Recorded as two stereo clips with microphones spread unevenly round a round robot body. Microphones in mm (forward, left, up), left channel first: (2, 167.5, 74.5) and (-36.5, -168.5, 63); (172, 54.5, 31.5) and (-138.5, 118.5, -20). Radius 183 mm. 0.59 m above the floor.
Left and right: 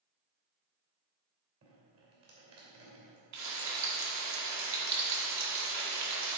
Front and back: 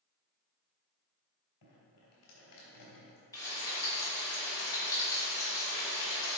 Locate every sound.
1.6 s dripping: 50° right, 3 m
3.3 s frying: 100° right, 1.8 m